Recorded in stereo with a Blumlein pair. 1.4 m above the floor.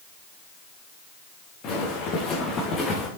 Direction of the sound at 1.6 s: 35° left.